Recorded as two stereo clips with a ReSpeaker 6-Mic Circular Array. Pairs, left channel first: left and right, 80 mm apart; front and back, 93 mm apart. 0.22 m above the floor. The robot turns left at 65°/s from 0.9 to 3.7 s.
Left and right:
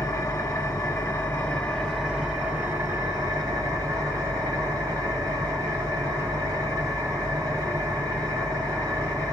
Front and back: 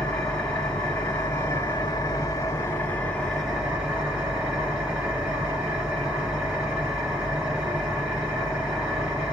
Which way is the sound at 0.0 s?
70° left.